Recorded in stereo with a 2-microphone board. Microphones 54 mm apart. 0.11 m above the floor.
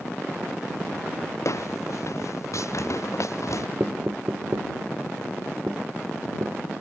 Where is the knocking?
50° right (ahead or behind).